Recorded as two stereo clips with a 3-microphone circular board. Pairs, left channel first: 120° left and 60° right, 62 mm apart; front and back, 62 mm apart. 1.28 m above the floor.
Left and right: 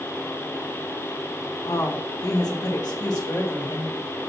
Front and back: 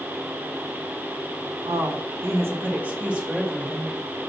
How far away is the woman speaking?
About 1.2 m.